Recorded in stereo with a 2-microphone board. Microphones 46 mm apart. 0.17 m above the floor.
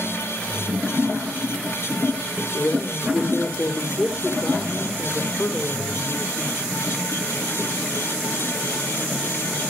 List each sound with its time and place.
2.5 s a woman speaking: 70° left (ahead or behind), 4 m